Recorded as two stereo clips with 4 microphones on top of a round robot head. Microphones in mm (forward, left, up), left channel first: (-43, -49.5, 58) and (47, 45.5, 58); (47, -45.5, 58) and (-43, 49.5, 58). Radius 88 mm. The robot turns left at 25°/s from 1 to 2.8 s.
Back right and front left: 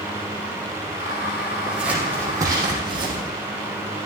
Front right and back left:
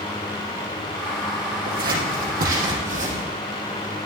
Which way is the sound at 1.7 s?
130° left.